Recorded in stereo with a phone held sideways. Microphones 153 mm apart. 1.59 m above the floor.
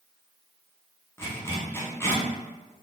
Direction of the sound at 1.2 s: 15° left (ahead or behind).